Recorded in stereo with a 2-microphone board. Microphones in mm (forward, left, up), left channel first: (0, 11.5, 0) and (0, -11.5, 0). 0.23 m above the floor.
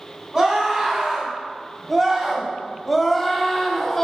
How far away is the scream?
About 2 m.